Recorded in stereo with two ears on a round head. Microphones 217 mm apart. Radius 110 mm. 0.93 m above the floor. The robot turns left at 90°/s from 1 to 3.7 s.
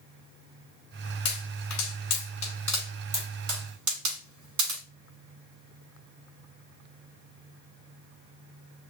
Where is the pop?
45° left (ahead or behind), 3.5 m; by 4.8 s 85° right, 3.5 m.